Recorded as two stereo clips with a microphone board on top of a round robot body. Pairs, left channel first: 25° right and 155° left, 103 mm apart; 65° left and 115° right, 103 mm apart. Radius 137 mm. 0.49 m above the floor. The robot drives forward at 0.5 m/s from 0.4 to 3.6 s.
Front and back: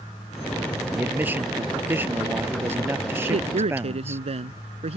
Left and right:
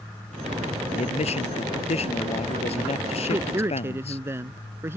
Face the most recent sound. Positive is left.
turn(degrees=180)